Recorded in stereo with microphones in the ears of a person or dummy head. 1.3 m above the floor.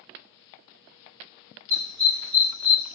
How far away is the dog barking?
About 1.5 m.